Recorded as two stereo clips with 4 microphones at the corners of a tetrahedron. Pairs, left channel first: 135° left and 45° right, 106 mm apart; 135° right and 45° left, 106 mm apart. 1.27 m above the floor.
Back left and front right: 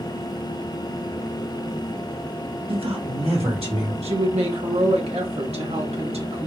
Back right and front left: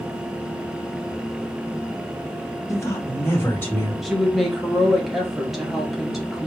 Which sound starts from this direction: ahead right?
A woman speaking, at 4.0 s.